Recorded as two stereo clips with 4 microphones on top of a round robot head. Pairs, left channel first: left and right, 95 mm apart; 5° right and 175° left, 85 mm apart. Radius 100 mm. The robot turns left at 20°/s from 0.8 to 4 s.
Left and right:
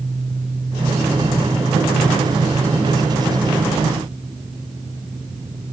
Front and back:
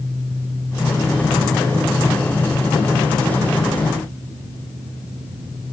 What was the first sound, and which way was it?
Only background noise.